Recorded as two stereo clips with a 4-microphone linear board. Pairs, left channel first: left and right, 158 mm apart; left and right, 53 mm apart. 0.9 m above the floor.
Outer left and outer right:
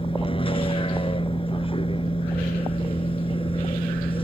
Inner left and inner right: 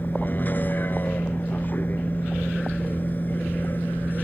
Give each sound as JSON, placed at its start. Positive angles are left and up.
{"t": 0.0, "sound": "a vehicle", "side_deg": 35}